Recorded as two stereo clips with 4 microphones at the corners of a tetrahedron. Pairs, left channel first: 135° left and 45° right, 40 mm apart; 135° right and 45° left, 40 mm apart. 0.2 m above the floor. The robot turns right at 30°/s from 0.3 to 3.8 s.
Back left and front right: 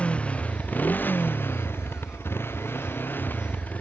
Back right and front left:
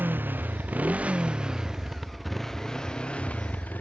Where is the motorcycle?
80° left; by 3.8 s 175° right.